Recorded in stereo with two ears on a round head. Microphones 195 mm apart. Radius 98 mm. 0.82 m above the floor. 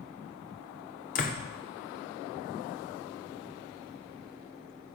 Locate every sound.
1.1 s a door slam: 40° left (ahead or behind), 1.8 m